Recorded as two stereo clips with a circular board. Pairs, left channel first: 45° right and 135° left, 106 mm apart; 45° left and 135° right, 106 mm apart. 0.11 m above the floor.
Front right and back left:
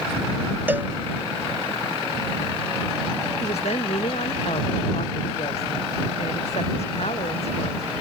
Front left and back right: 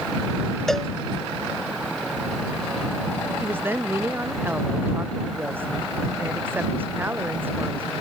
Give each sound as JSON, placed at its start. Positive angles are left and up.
{"t": 0.7, "sound": "a cowbell", "azimuth_deg": 125}
{"t": 3.4, "sound": "a woman speaking", "azimuth_deg": -65}